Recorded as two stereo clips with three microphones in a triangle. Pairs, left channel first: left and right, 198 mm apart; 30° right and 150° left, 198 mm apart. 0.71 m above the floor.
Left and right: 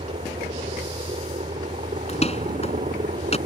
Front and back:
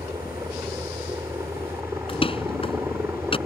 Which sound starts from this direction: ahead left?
A door slam, at 2.1 s.